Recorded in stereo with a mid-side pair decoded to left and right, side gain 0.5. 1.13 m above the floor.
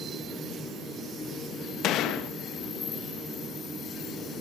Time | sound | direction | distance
1.8 | a gunshot | 70° left | 1.0 m